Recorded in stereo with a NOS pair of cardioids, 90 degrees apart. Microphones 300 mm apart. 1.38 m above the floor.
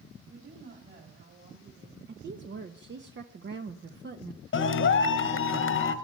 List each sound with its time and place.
0.3 s a woman speaking: 40° right, 3.5 m
2.1 s a woman speaking: 40° right, 1.1 m
4.5 s a clap: 40° left, 1.3 m